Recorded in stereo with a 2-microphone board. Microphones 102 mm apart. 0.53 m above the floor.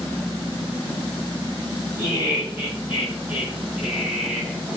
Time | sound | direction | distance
2.0 | laughter | 25° right (ahead or behind) | 7.5 m